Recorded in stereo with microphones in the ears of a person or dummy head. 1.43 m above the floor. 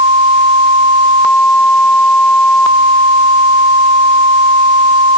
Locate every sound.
Only background noise.